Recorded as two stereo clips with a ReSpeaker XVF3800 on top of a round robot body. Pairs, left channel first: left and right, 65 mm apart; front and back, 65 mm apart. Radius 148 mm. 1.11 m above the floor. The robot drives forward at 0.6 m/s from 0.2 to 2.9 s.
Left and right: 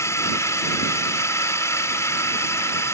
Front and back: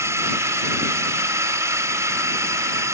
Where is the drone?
135° left.